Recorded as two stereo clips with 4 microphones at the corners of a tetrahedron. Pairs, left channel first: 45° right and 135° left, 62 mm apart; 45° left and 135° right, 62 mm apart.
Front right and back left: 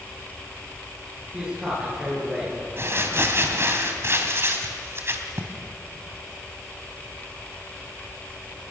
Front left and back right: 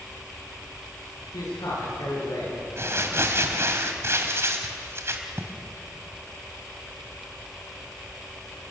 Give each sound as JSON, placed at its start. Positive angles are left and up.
{"t": 1.3, "sound": "a man speaking", "azimuth_deg": 60, "distance_m": 10.0}
{"t": 2.8, "sound": "crumpling", "azimuth_deg": 180, "distance_m": 2.0}